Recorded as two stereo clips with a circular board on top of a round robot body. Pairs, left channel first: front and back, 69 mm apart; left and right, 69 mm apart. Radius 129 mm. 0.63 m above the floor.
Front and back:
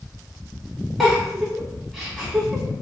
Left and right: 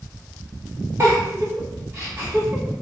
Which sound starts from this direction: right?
A giggle, at 1.0 s.